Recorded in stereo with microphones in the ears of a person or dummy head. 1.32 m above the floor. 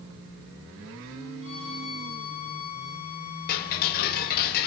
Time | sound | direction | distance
1.4 | a violin | 30° right (ahead or behind) | 8 m
3.5 | ticking | 55° left (ahead or behind) | 2.5 m